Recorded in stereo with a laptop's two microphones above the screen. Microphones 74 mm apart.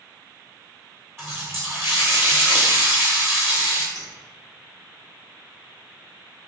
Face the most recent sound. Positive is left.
turn(degrees=-55)  # may be behind; listen again after turning